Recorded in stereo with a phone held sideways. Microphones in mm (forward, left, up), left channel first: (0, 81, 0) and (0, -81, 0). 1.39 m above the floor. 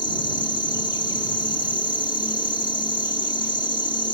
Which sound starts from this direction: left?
An insect, at 0.0 s.